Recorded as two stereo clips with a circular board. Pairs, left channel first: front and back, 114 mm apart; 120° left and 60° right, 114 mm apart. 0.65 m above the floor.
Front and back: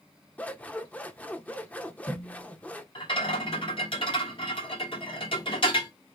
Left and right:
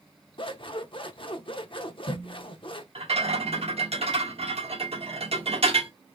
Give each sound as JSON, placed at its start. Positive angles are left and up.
{"t": 0.4, "sound": "scissors", "azimuth_deg": 75, "distance_m": 0.6}
{"t": 3.0, "sound": "a rattle", "azimuth_deg": -35, "distance_m": 1.2}